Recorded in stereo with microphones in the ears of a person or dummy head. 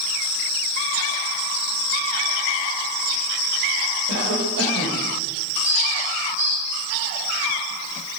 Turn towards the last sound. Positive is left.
turn(degrees=-80)